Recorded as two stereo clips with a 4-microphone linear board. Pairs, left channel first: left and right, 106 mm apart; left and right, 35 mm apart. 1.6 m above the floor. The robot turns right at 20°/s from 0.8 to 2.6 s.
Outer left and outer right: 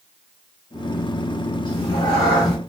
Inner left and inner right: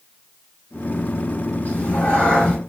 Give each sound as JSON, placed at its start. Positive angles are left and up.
{"t": 1.6, "sound": "a cat meowing", "side_deg": 40, "distance_m": 1.6}